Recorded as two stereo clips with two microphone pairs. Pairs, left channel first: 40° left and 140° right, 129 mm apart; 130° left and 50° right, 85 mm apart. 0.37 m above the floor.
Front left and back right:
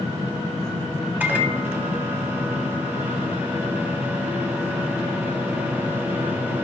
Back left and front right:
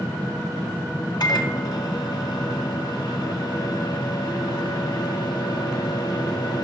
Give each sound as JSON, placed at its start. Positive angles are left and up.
{"t": 1.2, "sound": "a microwave", "azimuth_deg": 145, "distance_m": 2.0}